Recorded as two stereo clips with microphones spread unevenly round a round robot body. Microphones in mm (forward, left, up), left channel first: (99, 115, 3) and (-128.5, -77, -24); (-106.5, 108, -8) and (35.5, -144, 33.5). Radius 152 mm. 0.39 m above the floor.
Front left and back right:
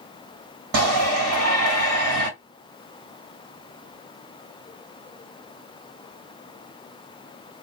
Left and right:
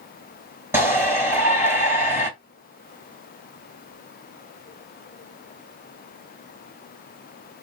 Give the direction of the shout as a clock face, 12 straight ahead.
5 o'clock.